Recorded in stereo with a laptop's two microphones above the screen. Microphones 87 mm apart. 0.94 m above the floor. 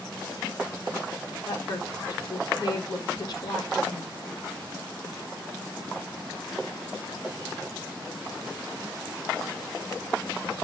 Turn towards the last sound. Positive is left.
turn(degrees=50)  # may be behind; listen again after turning